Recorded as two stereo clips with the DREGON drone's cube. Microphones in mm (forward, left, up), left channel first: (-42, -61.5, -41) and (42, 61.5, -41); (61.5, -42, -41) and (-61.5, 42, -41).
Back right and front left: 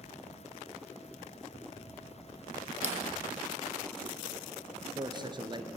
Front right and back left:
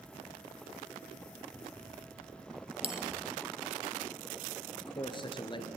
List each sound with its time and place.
2.8 s a bell: 95° left, 1.7 m
4.7 s a man speaking: 10° left, 2.5 m